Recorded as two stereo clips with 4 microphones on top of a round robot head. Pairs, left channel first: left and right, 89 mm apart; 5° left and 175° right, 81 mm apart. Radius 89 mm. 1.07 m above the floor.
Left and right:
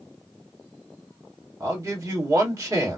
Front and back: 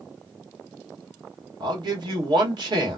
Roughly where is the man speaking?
Behind right.